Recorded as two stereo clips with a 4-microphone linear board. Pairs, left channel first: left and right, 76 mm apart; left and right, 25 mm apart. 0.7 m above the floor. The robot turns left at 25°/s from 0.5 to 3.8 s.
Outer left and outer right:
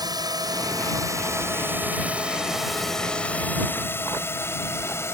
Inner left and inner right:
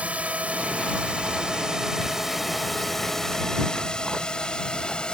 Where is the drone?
60° right (ahead or behind); by 5.1 s 35° left (ahead or behind).